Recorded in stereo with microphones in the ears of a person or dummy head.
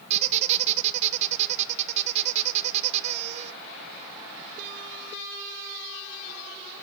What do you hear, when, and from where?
0.1 s a squeak: 45° right (ahead or behind), 1.2 m